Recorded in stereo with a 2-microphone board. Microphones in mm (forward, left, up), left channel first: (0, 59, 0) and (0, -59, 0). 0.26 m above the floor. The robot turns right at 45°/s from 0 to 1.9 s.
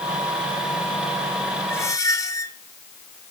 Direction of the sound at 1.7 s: 20° left (ahead or behind).